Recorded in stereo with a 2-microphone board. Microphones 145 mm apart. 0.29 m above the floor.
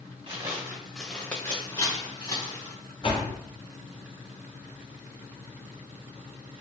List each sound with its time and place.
0.3 s footsteps: 30° right (ahead or behind), 1.2 m; by 2.8 s 40° left (ahead or behind), 2.5 m
3.0 s a door slam: 40° left (ahead or behind), 1.4 m